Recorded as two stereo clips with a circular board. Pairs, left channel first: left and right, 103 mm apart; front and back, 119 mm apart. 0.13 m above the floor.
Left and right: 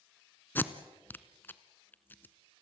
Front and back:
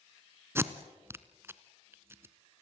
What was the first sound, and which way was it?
Tape being pulled, 135° left.